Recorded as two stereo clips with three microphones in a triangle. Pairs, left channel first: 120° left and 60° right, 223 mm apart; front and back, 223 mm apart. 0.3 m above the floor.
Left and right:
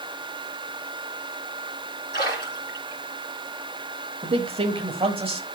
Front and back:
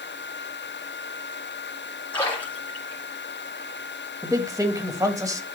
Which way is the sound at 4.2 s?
110° right.